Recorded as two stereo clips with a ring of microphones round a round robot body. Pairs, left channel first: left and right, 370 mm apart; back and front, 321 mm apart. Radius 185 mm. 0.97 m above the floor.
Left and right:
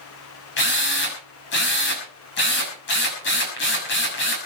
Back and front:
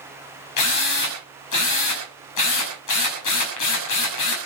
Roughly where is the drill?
Behind left.